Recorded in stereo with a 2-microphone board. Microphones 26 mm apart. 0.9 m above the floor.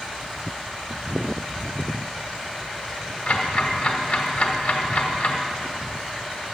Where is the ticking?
60° left (ahead or behind), 1.4 m.